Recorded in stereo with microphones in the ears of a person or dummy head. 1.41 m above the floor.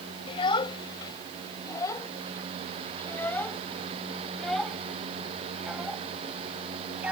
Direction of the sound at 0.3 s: 25° left (ahead or behind).